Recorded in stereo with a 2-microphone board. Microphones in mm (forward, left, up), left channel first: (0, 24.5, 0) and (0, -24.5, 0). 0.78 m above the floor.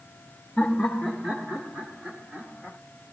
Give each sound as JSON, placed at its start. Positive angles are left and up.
{"t": 0.6, "sound": "laughter", "side_deg": 10, "distance_m": 1.4}